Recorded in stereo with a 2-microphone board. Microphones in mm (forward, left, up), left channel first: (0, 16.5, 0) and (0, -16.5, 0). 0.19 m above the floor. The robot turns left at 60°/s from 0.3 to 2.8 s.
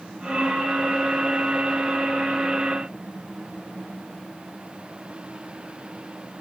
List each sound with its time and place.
Only background noise.